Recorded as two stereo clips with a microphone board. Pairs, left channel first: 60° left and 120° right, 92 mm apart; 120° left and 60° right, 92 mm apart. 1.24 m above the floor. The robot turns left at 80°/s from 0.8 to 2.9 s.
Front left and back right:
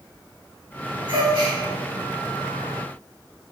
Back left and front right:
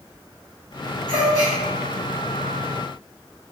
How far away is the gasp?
About 1.1 m.